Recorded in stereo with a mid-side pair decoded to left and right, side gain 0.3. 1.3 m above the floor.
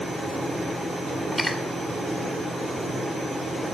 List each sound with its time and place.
1.3 s cutlery clinking: 30° left, 2 m